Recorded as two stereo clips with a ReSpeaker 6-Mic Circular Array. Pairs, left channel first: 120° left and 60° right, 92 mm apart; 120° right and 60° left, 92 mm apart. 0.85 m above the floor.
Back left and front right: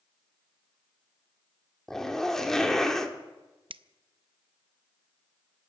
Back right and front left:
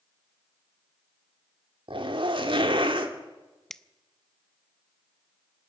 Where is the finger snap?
35° right, 0.5 m.